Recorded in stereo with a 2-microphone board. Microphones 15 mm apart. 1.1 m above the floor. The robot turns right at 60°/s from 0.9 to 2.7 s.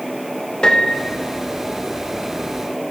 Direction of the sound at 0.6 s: 75° left (ahead or behind).